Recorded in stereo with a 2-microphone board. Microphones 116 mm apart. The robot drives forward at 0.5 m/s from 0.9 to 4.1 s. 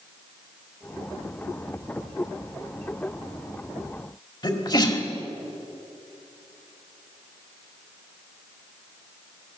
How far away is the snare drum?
No snare drum in this recording.